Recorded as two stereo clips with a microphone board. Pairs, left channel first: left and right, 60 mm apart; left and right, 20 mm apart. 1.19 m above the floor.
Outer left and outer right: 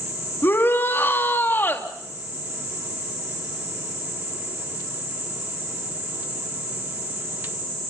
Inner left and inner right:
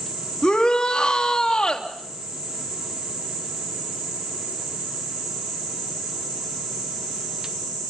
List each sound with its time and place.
0.4 s a shout: 35° left (ahead or behind), 2.5 m